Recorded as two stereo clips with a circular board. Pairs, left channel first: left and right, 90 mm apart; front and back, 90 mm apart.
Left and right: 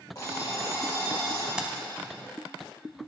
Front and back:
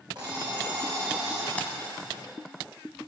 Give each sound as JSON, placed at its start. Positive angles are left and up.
{"t": 0.1, "sound": "an alarm clock", "azimuth_deg": 140, "distance_m": 3.0}
{"t": 1.6, "sound": "keys jangling", "azimuth_deg": -30, "distance_m": 0.8}